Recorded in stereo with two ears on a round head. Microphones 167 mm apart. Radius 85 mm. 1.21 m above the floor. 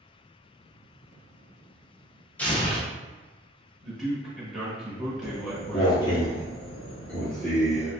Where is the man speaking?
Centre (ahead or behind), 1.4 m.